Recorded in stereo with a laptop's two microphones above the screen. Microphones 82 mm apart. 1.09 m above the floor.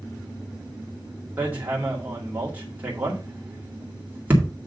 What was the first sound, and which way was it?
Hammering, 20° right (ahead or behind).